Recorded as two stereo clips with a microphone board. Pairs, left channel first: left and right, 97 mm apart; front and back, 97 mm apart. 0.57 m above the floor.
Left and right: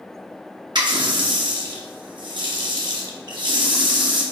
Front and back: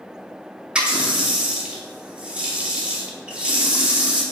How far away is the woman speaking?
I don't hear a woman speaking.